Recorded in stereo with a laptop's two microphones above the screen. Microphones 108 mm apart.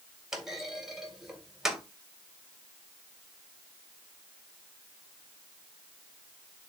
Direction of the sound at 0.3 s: 5° right (ahead or behind).